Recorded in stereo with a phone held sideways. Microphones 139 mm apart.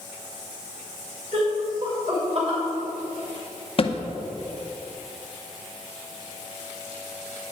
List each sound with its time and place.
1.3 s laughter: 60° right (ahead or behind), 3 m; by 2.6 s 45° right (ahead or behind), 3 m
3.8 s a thud: 45° left (ahead or behind), 0.6 m